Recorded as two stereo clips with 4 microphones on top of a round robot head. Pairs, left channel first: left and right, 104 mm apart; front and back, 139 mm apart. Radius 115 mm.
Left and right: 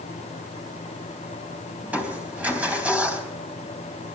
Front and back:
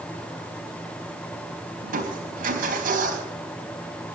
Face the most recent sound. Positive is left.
turn(degrees=-165)